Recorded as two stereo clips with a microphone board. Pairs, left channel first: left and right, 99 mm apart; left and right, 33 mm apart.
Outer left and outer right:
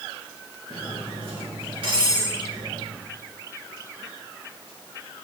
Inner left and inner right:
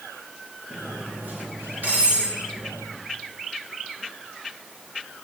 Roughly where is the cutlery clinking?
Right.